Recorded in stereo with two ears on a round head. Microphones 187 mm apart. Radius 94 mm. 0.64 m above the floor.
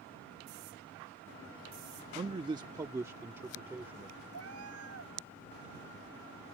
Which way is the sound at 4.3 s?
70° right (ahead or behind).